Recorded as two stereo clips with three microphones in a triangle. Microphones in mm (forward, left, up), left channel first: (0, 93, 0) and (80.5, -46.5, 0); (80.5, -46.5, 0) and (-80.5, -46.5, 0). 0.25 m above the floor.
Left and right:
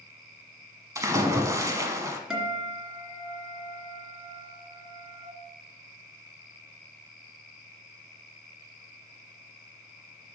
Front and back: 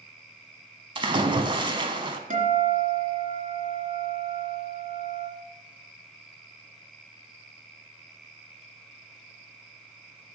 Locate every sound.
0.9 s a splash: 125° right, 1.0 m
2.3 s a guitar: 145° right, 2.5 m